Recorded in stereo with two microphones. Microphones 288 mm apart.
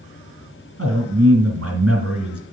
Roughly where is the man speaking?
Right.